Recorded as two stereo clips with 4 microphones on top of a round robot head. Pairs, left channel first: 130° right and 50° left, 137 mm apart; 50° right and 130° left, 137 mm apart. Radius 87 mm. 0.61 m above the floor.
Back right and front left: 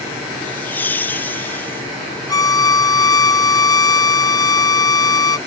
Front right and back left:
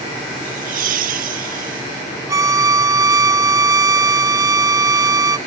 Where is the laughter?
155° left.